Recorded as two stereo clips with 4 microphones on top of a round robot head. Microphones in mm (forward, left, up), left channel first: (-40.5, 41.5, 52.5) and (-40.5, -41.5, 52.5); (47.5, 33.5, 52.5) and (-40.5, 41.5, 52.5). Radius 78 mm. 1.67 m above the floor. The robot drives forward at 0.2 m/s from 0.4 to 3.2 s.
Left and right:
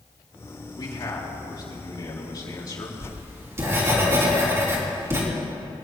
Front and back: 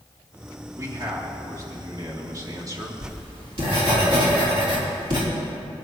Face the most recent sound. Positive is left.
turn(degrees=-145)